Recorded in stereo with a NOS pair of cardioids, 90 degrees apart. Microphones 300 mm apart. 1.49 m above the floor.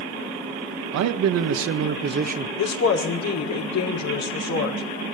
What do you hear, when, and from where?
0.9 s a man speaking: 70° right, 1.8 m; by 2.5 s 25° right, 1.7 m
2.6 s a woman speaking: 65° left, 5.5 m